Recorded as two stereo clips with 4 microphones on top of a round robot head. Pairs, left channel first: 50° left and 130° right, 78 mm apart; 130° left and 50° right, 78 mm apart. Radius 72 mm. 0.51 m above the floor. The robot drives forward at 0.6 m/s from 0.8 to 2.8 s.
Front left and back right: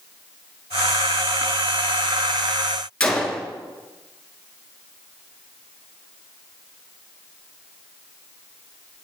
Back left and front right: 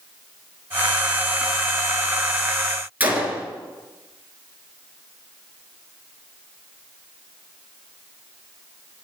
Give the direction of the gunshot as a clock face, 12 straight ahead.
12 o'clock.